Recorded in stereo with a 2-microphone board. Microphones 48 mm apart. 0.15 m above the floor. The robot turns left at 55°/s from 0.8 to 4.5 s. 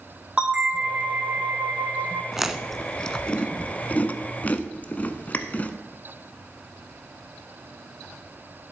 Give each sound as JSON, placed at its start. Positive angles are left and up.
{"t": 0.4, "sound": "a bell", "azimuth_deg": -20, "distance_m": 1.4}
{"t": 2.3, "sound": "chewing", "side_deg": -10, "distance_m": 0.6}